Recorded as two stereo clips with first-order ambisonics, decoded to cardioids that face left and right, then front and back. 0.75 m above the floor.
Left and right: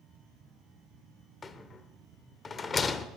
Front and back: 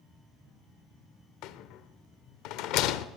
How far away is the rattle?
About 0.6 m.